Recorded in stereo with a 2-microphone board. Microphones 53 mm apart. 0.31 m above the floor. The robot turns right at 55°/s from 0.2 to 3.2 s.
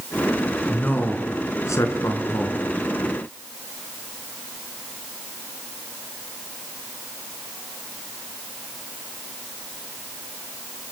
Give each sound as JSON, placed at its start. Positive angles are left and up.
{"t": 0.7, "sound": "a man speaking", "azimuth_deg": 30, "distance_m": 4.0}